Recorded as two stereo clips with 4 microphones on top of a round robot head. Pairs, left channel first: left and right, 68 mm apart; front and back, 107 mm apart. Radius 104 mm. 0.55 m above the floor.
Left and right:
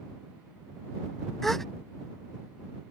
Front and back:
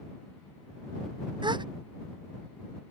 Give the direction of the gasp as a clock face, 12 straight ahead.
6 o'clock.